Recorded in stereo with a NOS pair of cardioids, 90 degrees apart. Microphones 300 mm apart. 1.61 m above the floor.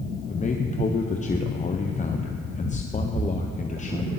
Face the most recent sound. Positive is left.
turn(degrees=25)